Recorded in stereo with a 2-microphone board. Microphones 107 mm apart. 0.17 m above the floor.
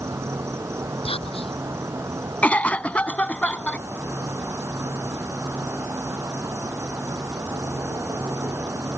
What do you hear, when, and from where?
0.0 s an insect: 25° right (ahead or behind)
1.1 s whispering: 65° left (ahead or behind)
2.4 s a cough: 15° left (ahead or behind)